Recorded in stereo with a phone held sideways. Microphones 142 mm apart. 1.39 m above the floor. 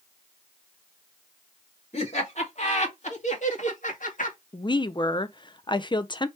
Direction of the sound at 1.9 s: 45° left (ahead or behind).